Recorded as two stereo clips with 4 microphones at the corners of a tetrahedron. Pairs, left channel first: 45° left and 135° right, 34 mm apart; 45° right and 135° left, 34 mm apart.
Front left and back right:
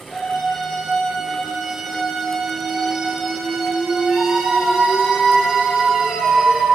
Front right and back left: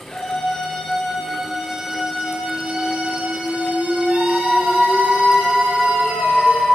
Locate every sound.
0.1 s a scream: 10° right, 1.9 m; by 6.7 s 155° left, 4.5 m